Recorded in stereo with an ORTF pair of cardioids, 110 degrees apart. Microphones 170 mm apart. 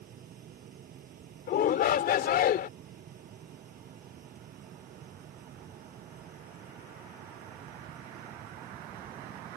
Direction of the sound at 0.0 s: 55° right.